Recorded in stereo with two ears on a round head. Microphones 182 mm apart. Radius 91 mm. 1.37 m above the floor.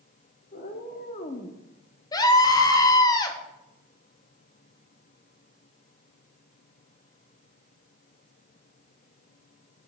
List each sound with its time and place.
0.5 s a cat meowing: 45° left (ahead or behind), 1.6 m; by 1.6 s 25° left (ahead or behind), 0.8 m
2.1 s a scream: 20° left (ahead or behind), 1.3 m